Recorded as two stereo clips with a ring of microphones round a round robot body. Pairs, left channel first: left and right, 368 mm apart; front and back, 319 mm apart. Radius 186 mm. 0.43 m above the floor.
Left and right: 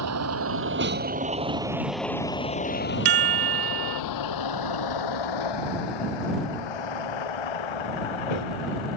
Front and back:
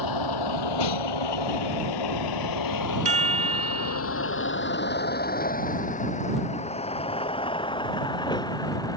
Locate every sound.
0.0 s a vehicle: 40° right; by 9.0 s 80° left
3.0 s a chime: 110° right